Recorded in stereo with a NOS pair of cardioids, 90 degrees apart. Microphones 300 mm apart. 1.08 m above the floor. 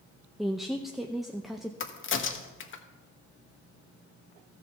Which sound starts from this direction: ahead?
A woman speaking, at 0.4 s.